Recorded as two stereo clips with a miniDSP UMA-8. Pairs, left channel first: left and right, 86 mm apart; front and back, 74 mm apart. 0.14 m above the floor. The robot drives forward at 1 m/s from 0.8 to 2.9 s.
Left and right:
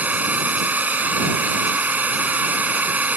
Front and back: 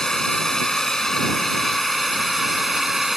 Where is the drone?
70° right; by 3.2 s 95° right.